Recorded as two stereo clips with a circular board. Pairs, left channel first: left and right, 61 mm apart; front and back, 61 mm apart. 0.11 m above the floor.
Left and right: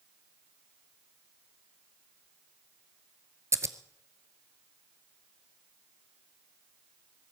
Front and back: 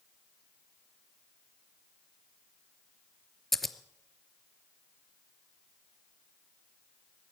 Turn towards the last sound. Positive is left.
turn(degrees=-90)